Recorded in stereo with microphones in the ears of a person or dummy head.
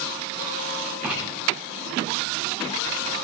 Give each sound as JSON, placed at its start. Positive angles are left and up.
{"t": 1.0, "sound": "writing", "side_deg": -5, "distance_m": 9.0}